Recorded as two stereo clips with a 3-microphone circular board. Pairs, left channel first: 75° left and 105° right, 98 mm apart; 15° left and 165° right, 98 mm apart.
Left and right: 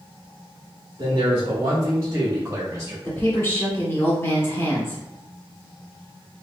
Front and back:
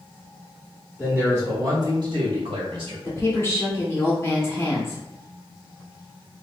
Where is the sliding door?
No sliding door in this recording.